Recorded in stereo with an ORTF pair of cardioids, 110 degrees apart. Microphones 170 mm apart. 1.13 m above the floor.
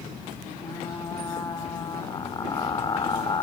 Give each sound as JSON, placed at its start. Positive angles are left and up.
{"t": 0.6, "sound": "frying", "azimuth_deg": 25, "distance_m": 3.5}